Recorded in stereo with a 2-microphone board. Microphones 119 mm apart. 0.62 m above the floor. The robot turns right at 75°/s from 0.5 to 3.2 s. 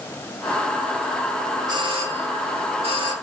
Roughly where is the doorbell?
Behind right.